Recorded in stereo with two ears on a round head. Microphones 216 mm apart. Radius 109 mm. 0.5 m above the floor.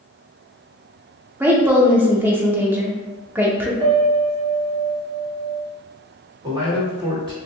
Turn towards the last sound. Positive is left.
turn(degrees=-20)  # may be behind; listen again after turning